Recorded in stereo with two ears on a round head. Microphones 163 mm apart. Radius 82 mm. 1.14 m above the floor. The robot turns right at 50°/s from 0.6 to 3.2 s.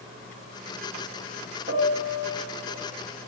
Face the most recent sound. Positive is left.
turn(degrees=35)